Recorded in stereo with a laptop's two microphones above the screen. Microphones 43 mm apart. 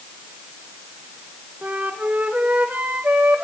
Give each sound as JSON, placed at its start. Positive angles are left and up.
{"t": 1.6, "sound": "a flute", "side_deg": -40, "distance_m": 1.2}